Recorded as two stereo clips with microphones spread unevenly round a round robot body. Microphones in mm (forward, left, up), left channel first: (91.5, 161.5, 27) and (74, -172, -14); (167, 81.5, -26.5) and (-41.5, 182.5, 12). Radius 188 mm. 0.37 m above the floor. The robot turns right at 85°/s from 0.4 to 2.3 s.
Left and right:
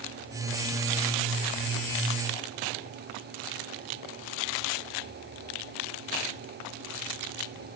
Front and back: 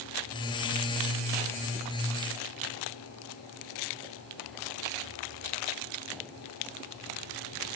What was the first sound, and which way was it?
Only background noise.